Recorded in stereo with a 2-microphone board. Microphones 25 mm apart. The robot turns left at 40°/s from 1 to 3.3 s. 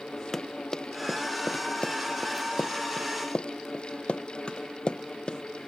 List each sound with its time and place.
0.3 s running footsteps: 15° left (ahead or behind); by 5.4 s 30° left (ahead or behind)